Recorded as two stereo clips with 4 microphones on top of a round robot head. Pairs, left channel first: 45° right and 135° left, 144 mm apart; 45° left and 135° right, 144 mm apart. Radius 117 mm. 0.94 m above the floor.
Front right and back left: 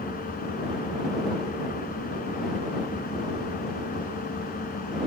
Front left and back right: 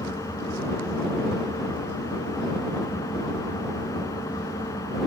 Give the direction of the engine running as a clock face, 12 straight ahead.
1 o'clock.